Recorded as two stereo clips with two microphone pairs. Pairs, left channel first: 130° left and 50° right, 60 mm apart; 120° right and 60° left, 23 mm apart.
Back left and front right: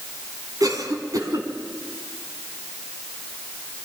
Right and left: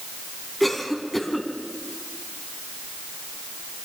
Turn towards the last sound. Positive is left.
turn(degrees=-35)